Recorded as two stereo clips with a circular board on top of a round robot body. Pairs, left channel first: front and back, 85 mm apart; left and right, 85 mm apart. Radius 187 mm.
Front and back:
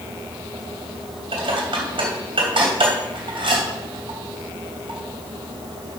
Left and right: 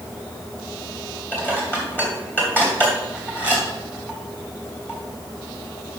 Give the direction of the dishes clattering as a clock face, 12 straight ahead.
7 o'clock.